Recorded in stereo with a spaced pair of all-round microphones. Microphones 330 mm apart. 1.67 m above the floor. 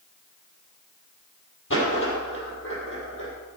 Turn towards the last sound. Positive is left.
turn(degrees=40)  # may be behind; listen again after turning